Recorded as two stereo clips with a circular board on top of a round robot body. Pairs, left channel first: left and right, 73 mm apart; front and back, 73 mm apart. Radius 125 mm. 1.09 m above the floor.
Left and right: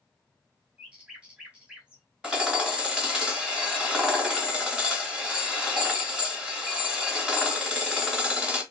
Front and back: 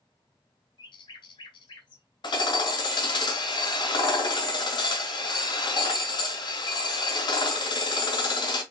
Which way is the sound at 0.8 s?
15° right.